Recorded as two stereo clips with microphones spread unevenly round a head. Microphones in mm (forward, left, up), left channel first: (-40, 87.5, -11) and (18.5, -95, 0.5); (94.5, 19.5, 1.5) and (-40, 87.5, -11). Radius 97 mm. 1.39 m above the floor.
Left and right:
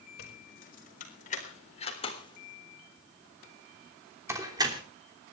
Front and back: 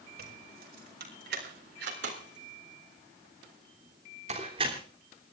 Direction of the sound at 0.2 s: 150° left.